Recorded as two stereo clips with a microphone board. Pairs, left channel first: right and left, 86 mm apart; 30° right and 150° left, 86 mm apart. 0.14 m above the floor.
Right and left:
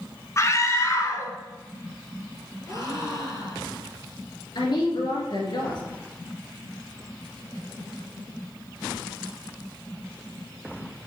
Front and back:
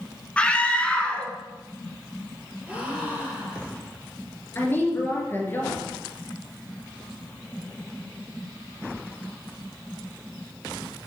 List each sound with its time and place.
0.4 s a scream: 95° right, 1.5 m
2.7 s a gasp: 135° right, 3 m
4.5 s a woman speaking: 90° right, 2.5 m